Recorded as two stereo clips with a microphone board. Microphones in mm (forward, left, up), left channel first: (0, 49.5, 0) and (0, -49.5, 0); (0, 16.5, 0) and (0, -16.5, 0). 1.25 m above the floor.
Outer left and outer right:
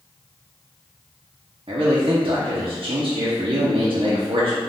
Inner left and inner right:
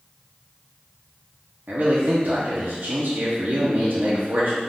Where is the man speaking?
70° right (ahead or behind), 0.9 m.